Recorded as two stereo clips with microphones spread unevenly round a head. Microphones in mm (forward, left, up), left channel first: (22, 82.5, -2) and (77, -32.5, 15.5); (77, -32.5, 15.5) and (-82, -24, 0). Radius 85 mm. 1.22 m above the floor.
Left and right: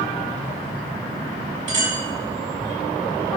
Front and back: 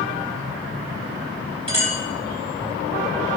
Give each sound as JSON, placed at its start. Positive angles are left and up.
{"t": 1.7, "sound": "a clink", "azimuth_deg": -130, "distance_m": 4.0}